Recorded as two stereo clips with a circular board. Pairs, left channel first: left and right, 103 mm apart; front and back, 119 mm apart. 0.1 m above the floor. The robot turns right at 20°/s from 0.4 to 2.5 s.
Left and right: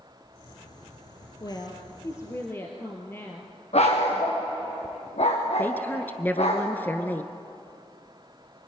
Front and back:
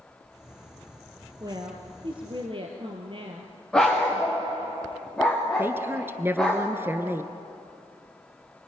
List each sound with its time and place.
1.4 s a woman speaking: 130° left, 2.5 m; by 3.5 s 155° left, 2.5 m
3.7 s a dog barking: 85° left, 5.5 m
5.6 s a woman speaking: 135° left, 1.4 m